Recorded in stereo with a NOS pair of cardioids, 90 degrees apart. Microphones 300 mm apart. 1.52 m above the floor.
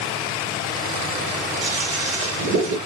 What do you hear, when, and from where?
1.6 s a toilet flushing: 45° right, 1.1 m